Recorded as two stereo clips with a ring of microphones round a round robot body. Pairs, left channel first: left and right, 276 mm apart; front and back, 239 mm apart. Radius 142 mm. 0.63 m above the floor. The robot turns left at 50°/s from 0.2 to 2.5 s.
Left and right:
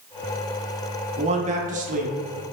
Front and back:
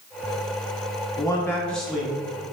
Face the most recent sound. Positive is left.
turn(degrees=-120)